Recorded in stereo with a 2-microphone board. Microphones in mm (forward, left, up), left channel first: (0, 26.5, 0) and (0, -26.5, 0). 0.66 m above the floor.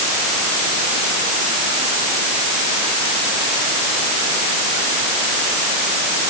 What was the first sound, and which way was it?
Only background noise.